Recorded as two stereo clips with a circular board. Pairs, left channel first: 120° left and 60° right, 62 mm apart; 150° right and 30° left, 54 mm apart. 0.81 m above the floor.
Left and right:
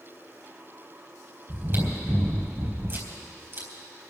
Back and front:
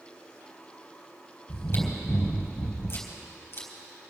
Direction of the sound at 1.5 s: 110° right.